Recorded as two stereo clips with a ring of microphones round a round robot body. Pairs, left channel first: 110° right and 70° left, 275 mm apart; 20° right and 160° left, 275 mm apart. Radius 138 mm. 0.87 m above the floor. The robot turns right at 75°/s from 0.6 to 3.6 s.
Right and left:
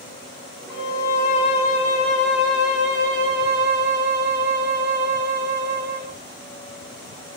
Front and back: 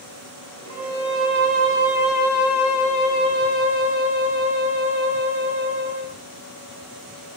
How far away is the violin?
About 1.1 m.